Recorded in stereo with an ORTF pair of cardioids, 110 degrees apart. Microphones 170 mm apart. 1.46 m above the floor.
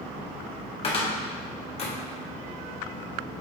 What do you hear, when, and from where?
0.8 s a cupboard door: 35° left, 1.6 m